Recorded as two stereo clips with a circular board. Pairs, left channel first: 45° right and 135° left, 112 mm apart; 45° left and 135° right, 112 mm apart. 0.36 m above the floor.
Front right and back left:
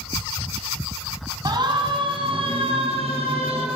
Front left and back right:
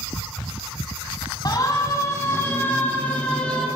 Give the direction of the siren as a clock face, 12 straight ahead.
9 o'clock.